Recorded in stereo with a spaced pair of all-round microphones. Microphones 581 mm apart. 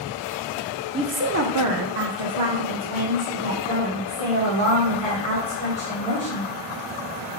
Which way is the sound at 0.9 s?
10° right (ahead or behind).